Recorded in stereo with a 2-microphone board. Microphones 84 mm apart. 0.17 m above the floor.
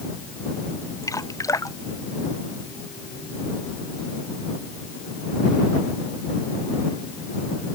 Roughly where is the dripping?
Left.